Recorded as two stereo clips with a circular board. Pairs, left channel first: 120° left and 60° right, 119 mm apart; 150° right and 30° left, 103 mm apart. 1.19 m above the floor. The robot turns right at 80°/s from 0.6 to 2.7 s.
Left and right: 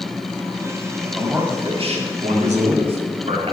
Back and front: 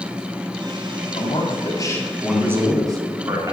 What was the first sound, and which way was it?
A man speaking, 150° right.